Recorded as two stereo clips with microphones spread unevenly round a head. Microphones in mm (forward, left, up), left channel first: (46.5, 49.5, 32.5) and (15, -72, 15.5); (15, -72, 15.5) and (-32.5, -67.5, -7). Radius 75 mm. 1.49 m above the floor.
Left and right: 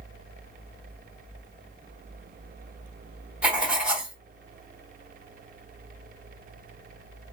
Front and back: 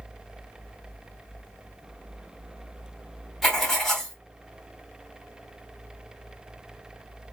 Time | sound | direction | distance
3.4 | writing | 15° right | 0.7 m